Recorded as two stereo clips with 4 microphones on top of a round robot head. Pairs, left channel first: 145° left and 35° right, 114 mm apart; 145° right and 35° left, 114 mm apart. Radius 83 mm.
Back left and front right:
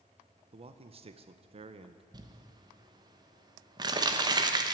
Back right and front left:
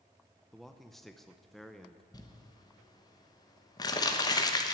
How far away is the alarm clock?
No alarm clock in this recording.